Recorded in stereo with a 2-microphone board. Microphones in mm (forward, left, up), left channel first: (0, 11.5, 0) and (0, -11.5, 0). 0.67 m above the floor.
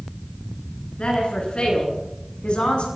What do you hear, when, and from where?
1.0 s a woman speaking: 50° left (ahead or behind), 9.5 m; by 2.9 s 55° left (ahead or behind), 7.5 m